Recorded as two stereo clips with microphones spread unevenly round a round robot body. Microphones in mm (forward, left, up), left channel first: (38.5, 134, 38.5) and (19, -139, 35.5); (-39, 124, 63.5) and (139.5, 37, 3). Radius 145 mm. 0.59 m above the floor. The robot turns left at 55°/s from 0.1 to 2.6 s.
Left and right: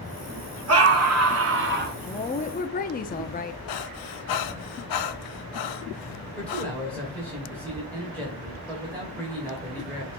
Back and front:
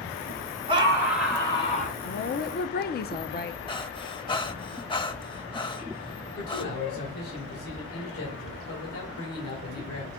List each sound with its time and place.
0.7 s a scream: 75° right, 1.6 m; by 2.0 s 150° right, 1.6 m
2.0 s a woman speaking: 150° left, 0.7 m; by 3.6 s 120° left, 0.7 m
3.7 s breathing: 90° left, 0.9 m
6.4 s a man speaking: 170° left, 2.5 m